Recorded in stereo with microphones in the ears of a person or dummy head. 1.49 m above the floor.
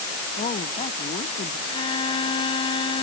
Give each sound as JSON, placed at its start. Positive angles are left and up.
{"t": 0.4, "sound": "a woman speaking", "side_deg": 35}
{"t": 1.7, "sound": "a violin", "side_deg": 30}